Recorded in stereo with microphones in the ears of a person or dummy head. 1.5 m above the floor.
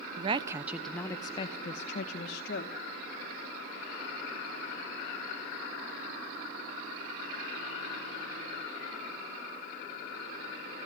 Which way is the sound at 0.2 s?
30° right (ahead or behind).